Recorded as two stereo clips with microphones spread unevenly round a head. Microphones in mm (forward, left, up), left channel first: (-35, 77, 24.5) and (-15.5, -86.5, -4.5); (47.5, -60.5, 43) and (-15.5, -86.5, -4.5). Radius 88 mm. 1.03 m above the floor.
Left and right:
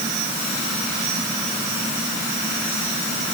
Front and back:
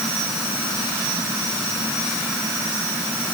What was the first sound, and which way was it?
Only background noise.